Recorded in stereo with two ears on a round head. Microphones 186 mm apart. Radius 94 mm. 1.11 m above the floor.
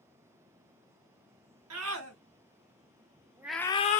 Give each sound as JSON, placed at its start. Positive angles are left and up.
{"t": 1.7, "sound": "a scream", "side_deg": -80, "distance_m": 1.9}